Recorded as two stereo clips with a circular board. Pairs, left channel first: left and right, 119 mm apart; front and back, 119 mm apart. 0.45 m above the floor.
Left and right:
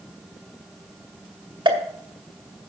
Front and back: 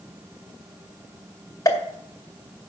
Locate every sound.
1.6 s a pop: 55° right, 2 m